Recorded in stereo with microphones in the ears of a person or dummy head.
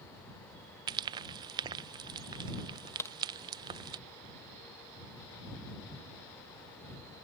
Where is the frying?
25° right (ahead or behind).